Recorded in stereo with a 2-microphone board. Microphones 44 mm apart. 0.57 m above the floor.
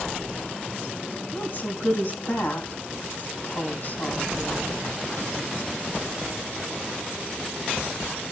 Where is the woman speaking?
50° left (ahead or behind), 4 m.